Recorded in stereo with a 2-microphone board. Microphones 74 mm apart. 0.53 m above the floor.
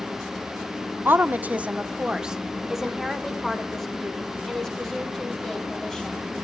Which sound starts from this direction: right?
A woman speaking, at 1.1 s.